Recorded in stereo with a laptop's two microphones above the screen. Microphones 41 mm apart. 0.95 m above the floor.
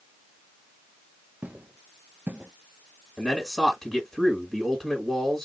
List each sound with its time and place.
1.4 s footsteps: 40° right (ahead or behind), 1.2 m; by 2.5 s 35° right (ahead or behind), 1.1 m
3.2 s a man speaking: 5° left (ahead or behind), 1.7 m